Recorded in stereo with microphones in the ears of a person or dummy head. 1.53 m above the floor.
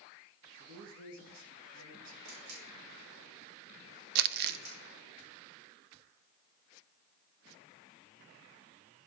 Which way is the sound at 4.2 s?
50° right (ahead or behind).